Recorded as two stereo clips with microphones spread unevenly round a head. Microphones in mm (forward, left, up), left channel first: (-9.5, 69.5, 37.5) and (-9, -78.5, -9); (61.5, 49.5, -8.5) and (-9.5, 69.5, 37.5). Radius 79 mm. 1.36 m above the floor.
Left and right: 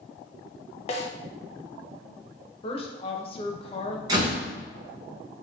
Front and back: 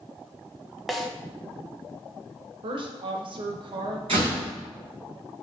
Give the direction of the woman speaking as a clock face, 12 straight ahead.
7 o'clock.